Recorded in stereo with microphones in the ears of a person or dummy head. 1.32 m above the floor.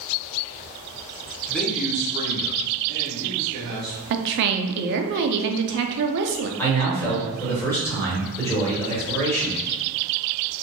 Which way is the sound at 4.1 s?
60° right (ahead or behind).